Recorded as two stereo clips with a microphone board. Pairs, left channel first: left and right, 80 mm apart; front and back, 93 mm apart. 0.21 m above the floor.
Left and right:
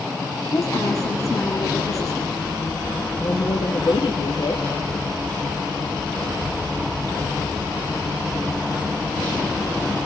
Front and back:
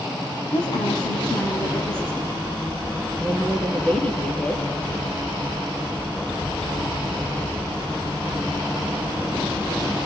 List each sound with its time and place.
0.5 s a woman speaking: 45° left, 4.5 m
3.2 s a woman speaking: 75° left, 4.5 m